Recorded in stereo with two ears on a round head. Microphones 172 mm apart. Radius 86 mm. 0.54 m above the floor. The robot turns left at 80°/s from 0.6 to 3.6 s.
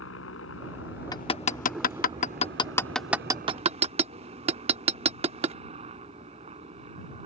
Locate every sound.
0.0 s a helicopter: 95° left; by 7.3 s 145° right
1.1 s hammering: 20° left (ahead or behind); by 5.6 s 30° right (ahead or behind)